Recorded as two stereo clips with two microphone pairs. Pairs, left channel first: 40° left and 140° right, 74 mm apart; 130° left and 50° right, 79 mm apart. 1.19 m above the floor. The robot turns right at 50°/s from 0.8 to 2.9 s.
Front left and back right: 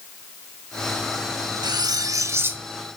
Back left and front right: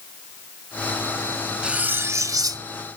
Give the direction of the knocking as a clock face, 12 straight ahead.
No knocking in this recording.